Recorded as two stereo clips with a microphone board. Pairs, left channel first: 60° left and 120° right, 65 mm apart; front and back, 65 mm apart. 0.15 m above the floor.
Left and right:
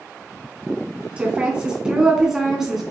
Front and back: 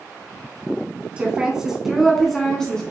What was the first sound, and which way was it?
A woman speaking, 145° right.